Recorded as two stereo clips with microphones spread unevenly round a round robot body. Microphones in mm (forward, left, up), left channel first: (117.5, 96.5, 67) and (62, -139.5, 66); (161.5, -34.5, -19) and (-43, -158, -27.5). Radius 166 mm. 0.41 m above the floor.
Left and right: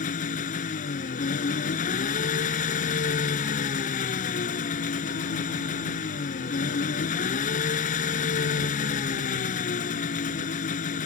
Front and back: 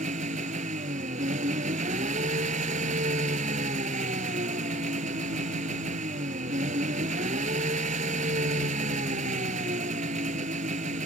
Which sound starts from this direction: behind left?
An engine running, at 0.0 s.